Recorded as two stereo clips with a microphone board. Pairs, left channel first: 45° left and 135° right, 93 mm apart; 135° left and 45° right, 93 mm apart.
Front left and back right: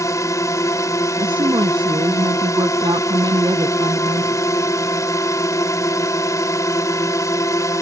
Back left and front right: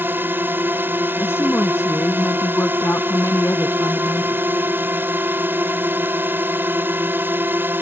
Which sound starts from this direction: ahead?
A drone, at 0.0 s.